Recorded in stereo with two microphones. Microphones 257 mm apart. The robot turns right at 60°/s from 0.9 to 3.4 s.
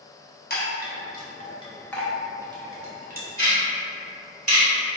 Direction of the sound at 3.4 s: 60° right (ahead or behind).